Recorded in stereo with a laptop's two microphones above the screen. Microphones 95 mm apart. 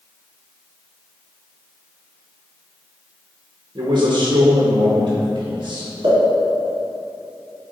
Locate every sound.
3.8 s a man speaking: 60° right (ahead or behind), 0.9 m
6.0 s a pop: 75° right (ahead or behind), 2.0 m